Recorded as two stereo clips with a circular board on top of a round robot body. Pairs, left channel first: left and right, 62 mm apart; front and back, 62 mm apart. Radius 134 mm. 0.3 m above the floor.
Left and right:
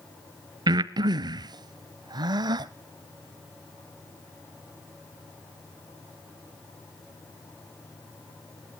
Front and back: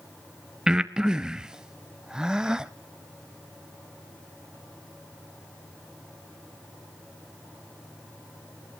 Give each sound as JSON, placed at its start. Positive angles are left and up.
{"t": 0.7, "sound": "breathing", "azimuth_deg": -100, "distance_m": 0.5}